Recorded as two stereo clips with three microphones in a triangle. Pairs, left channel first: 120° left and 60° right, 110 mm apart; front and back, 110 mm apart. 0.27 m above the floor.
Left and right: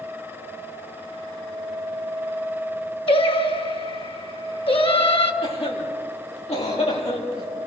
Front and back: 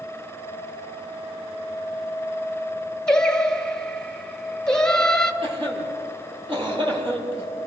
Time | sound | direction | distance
3.1 | singing | 85° left | 1.2 m
5.4 | a cough | 140° left | 8.5 m